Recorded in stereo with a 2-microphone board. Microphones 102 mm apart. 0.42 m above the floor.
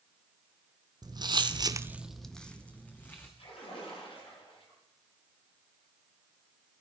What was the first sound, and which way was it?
Footsteps, 40° right (ahead or behind).